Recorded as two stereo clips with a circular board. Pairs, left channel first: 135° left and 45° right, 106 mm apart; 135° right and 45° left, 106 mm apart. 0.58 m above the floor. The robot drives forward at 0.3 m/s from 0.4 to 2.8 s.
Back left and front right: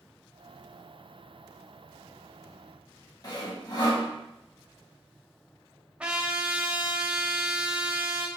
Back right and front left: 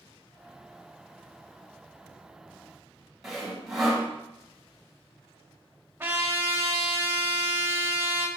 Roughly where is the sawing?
Behind left.